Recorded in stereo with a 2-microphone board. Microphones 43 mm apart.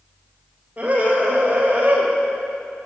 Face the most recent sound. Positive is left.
turn(degrees=-45)  # may be behind; listen again after turning